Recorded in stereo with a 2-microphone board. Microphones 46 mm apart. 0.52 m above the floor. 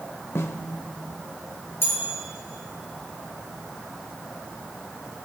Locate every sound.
0.3 s a snare drum: 70° left (ahead or behind), 0.8 m
1.8 s a bell: 60° left (ahead or behind), 5 m